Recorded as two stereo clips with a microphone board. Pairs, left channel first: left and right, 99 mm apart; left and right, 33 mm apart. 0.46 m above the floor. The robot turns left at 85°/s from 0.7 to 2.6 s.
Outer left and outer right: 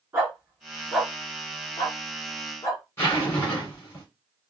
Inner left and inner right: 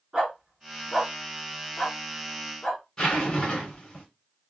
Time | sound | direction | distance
0.1 | a dog barking | 25° right (ahead or behind) | 2.5 m
3.0 | a zipper | 25° left (ahead or behind) | 2.5 m